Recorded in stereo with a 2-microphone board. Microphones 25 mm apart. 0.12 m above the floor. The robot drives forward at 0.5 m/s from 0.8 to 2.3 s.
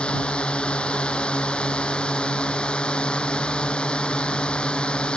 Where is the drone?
45° left (ahead or behind); by 5.2 s 40° left (ahead or behind).